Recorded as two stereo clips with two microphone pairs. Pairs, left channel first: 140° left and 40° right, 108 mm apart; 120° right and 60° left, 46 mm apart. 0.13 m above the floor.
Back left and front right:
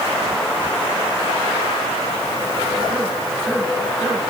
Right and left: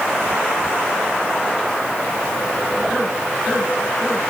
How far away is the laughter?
No laughter in this recording.